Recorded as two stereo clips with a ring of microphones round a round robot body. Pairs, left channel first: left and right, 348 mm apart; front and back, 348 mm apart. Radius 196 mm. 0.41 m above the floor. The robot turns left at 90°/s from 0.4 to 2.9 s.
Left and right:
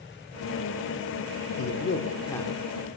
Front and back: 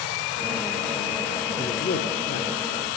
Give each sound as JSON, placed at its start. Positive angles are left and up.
{"t": 1.6, "sound": "a man speaking", "azimuth_deg": 80, "distance_m": 0.9}